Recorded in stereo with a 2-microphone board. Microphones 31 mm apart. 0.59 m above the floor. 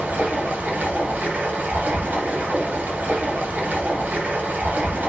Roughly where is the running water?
Right.